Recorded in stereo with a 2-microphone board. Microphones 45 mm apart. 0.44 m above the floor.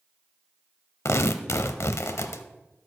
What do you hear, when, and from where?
1.1 s tearing paper: 80° left, 0.6 m